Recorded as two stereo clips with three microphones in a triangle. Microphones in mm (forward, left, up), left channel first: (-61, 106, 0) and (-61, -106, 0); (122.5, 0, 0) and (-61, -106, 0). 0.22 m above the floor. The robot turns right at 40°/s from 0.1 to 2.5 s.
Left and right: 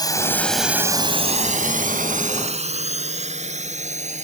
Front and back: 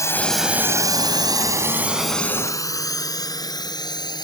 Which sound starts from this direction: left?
A drone, at 0.0 s.